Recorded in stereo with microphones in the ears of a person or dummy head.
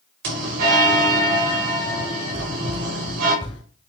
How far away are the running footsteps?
About 1.8 m.